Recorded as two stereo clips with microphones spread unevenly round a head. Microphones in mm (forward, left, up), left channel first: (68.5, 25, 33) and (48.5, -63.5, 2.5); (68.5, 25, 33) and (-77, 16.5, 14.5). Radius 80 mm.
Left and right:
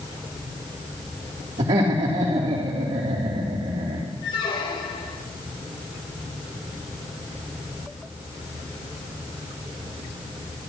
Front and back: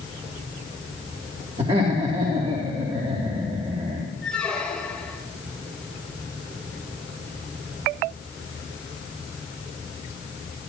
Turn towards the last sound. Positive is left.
turn(degrees=85)